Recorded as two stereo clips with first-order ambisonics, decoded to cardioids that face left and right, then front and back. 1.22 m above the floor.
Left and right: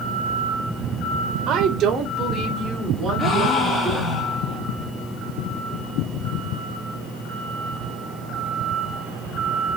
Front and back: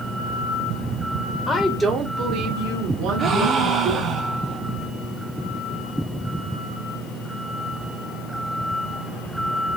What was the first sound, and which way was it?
A woman speaking, 60° right.